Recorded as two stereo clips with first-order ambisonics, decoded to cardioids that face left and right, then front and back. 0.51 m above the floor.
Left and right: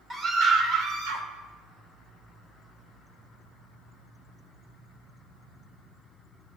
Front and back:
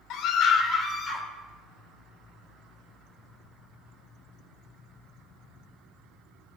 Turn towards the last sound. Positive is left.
turn(degrees=-75)